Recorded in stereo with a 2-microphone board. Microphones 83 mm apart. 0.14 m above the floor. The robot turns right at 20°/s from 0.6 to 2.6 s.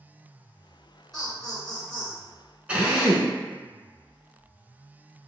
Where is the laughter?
5° left (ahead or behind), 1.3 m; by 2.2 s 15° left (ahead or behind), 1.3 m.